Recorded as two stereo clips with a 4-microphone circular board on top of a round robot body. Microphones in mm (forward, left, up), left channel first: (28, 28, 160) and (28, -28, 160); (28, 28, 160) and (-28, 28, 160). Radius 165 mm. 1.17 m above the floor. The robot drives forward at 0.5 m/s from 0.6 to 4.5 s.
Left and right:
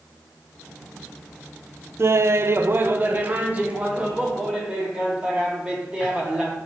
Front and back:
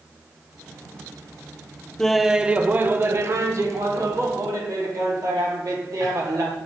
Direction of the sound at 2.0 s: 80° right.